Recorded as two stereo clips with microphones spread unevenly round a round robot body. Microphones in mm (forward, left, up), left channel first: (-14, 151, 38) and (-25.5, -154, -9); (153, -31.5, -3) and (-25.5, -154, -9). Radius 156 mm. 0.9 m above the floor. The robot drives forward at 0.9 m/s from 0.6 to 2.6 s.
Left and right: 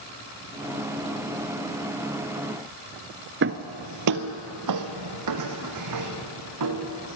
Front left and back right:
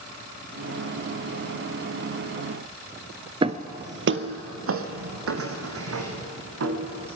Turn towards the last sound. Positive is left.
turn(degrees=-130)